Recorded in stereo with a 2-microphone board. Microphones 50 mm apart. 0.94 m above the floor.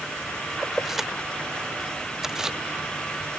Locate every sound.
0.6 s keys jangling: 5° right (ahead or behind); by 2.6 s 15° right (ahead or behind)